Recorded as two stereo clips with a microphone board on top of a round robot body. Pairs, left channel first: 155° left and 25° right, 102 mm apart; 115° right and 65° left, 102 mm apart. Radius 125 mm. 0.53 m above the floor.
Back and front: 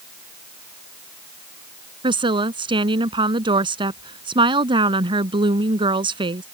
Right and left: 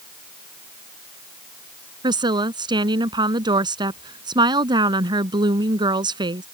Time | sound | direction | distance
2.0 | a woman speaking | 20° left | ?